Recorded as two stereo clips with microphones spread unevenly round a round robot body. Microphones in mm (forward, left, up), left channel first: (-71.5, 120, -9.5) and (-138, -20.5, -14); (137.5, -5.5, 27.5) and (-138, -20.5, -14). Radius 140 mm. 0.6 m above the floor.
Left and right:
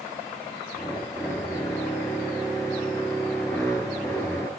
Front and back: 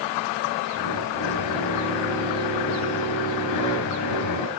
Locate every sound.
0.7 s a drill: 25° right, 4 m